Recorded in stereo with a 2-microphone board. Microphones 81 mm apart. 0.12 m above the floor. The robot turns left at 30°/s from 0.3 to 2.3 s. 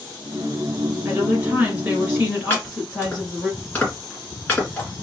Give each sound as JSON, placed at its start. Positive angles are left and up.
{"t": 1.1, "sound": "a woman speaking", "azimuth_deg": -130, "distance_m": 1.7}
{"t": 2.5, "sound": "chopping", "side_deg": 20, "distance_m": 1.8}